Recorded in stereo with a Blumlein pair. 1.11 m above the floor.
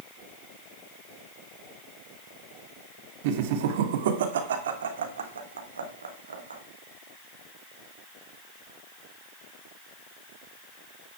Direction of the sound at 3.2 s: 50° right.